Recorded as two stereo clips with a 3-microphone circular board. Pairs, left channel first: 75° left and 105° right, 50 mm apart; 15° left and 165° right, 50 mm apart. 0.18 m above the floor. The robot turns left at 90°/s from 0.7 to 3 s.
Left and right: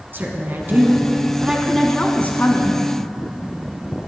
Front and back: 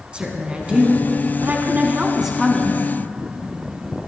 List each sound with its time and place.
0.1 s a woman speaking: 105° right, 1.5 m; by 2.8 s 65° left, 1.5 m